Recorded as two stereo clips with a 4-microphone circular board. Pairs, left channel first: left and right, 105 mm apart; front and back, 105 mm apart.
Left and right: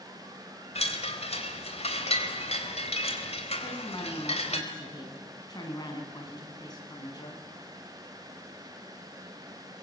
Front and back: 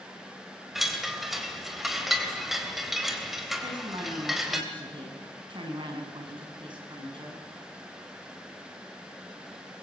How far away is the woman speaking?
About 6.5 m.